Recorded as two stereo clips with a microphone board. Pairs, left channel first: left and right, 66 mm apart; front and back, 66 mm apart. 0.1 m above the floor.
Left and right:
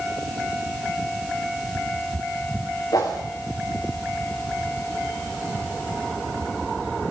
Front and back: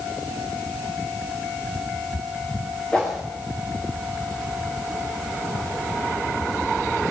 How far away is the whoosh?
About 4 m.